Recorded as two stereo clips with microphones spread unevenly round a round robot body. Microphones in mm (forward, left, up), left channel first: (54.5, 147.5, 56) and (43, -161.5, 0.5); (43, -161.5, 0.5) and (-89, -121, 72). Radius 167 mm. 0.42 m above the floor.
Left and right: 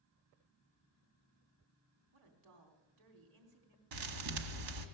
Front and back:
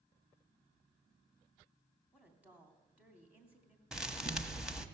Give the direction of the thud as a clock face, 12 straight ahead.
4 o'clock.